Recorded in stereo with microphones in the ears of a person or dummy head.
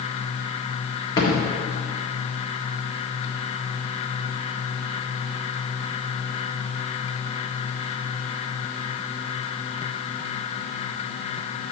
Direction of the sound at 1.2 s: 25° left (ahead or behind).